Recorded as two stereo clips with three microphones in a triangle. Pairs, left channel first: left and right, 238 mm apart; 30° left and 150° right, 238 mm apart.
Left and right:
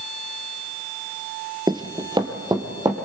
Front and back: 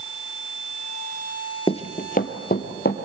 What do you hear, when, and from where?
1.7 s running footsteps: 25° right, 0.9 m; by 3.0 s 20° right, 2.5 m